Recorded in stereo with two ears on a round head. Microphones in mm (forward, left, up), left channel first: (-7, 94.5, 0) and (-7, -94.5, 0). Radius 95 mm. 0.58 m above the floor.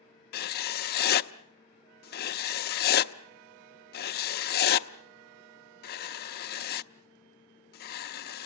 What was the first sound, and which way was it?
Writing, 45° left (ahead or behind).